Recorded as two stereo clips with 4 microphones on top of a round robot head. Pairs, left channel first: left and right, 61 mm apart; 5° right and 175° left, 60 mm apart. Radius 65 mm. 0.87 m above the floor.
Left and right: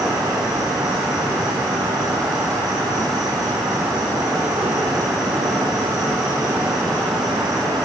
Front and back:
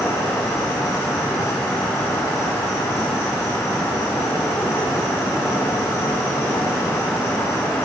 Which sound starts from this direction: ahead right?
An insect, at 0.0 s.